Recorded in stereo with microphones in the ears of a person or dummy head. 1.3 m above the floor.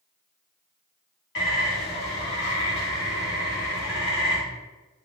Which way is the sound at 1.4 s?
70° left (ahead or behind).